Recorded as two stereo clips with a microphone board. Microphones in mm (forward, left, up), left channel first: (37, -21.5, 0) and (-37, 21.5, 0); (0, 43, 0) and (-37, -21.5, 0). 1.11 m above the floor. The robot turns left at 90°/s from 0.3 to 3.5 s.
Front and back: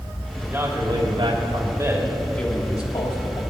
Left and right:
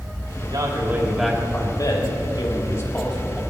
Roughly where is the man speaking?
Behind right.